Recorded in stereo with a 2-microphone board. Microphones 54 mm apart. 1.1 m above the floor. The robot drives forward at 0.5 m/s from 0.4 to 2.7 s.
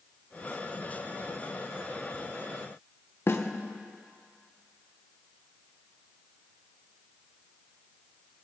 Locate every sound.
3.3 s a snare drum: 45° left (ahead or behind), 0.9 m